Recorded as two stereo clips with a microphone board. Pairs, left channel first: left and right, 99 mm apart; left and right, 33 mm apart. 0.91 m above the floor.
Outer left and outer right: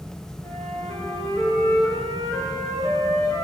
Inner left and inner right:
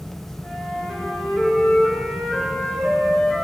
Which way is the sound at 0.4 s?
35° left (ahead or behind).